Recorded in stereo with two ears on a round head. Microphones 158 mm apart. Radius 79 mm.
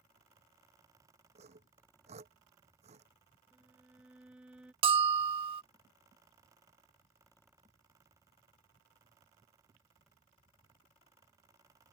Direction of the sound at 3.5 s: 5° right (ahead or behind).